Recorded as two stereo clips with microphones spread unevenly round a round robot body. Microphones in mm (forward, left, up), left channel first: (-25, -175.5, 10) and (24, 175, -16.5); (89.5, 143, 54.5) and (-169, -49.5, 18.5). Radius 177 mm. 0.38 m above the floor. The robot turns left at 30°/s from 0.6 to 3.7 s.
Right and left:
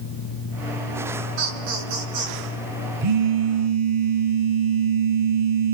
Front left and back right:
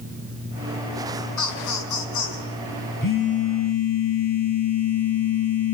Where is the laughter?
70° left, 5.5 m; by 2.5 s 40° left, 5.5 m.